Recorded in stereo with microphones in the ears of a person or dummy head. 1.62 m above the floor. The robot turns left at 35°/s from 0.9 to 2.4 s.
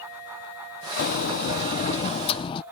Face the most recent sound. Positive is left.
turn(degrees=35)